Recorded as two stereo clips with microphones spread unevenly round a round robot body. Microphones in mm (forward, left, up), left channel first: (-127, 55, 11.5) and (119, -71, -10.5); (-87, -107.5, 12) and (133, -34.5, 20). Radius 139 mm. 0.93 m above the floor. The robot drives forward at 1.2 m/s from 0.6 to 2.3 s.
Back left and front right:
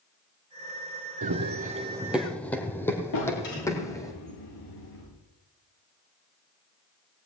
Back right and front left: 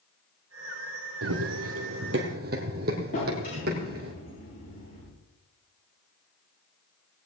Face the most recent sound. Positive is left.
turn(degrees=135)